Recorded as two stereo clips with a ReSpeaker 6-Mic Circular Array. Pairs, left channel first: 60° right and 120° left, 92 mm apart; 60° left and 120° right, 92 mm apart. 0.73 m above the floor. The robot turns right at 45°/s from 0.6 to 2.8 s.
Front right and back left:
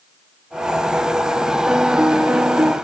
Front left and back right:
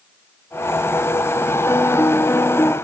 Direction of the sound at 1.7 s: 50° left.